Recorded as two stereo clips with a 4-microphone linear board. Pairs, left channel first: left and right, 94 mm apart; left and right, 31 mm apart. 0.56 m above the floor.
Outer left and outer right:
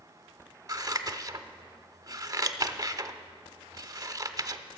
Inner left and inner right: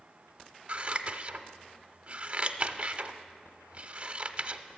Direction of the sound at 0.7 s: 35° right (ahead or behind).